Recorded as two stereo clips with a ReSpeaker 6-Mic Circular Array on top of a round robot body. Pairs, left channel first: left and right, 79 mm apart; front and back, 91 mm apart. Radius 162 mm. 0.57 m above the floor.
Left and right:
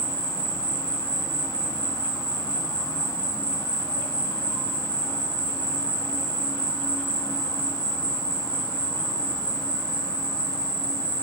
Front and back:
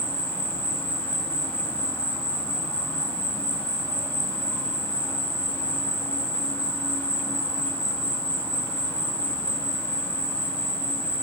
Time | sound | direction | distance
0.0 | an insect | 65° left | 3.5 m